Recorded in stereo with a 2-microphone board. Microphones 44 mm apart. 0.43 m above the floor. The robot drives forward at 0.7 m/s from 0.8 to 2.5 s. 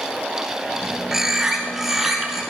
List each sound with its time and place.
1.1 s a bird: 10° right (ahead or behind), 1.2 m; by 2.4 s 5° right (ahead or behind), 2 m